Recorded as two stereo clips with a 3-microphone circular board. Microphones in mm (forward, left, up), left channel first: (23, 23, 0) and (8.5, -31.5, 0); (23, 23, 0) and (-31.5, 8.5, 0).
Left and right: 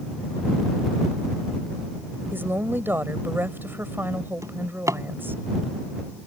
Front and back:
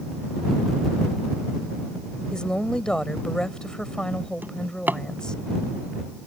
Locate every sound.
2.3 s a woman speaking: 60° right
4.4 s a drawer: 110° right